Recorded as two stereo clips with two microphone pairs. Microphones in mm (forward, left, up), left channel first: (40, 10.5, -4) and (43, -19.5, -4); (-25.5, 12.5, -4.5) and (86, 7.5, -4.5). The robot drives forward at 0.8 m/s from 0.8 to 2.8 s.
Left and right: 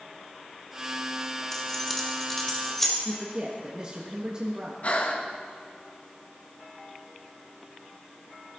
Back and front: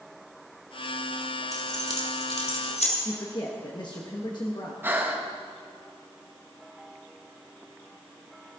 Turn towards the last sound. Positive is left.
turn(degrees=65)